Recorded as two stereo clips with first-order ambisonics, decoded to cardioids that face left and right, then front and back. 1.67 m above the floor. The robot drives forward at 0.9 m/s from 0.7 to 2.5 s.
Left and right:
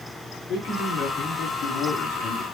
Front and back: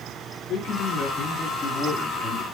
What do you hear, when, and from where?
0.5 s a man speaking: 50° left, 3 m; by 2.4 s 80° left, 2.5 m